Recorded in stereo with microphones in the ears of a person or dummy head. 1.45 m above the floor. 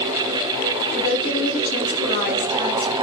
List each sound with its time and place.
0.9 s a woman speaking: 40° left (ahead or behind), 3 m